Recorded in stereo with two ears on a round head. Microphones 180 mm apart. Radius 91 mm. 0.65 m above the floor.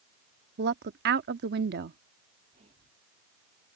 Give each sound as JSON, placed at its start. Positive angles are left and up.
{"t": 0.6, "sound": "a woman speaking", "side_deg": -55}
{"t": 2.5, "sound": "whispering", "side_deg": -35}